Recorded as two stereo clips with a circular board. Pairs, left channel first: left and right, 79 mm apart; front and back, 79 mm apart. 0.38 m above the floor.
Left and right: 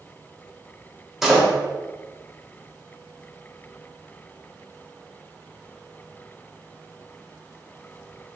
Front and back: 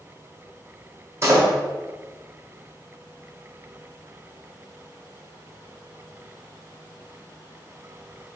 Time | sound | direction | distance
1.2 | a door slam | 175° right | 0.9 m